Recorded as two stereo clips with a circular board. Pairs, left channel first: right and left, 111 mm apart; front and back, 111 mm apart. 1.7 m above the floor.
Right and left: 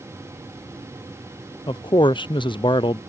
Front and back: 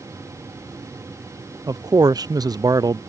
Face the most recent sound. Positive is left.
turn(degrees=-130)